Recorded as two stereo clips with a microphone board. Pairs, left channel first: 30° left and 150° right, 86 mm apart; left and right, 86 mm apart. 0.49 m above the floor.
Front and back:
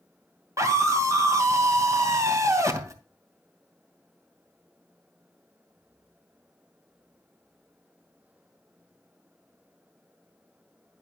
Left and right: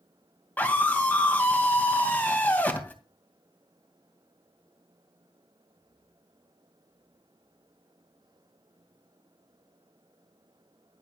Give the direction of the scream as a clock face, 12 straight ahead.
7 o'clock.